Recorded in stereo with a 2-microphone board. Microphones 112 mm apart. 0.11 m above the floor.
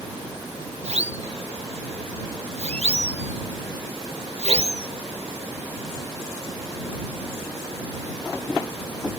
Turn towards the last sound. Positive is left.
turn(degrees=-65)  # may be behind; listen again after turning